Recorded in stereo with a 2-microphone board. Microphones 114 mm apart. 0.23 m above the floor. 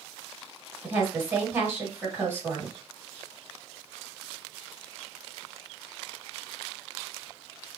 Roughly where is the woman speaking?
Right.